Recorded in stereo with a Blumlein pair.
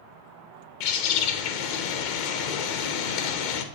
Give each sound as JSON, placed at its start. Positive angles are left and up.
{"t": 0.8, "sound": "a bird", "azimuth_deg": 45, "distance_m": 0.6}